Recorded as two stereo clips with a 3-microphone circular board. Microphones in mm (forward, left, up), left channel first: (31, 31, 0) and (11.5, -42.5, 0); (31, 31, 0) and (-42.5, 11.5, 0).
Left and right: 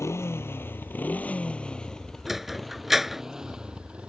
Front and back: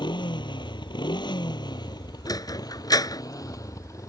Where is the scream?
I don't hear a scream.